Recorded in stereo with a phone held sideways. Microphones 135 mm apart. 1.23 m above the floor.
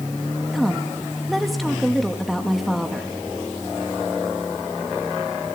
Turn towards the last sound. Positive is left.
turn(degrees=0)  # may be behind; listen again after turning